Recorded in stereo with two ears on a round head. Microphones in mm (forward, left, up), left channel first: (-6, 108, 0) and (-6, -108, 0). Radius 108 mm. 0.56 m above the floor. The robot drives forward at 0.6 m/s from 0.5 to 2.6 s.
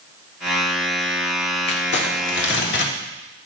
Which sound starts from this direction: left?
Crumpling, at 1.7 s.